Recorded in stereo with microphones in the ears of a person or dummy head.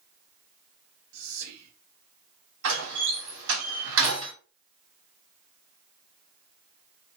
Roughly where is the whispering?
Right.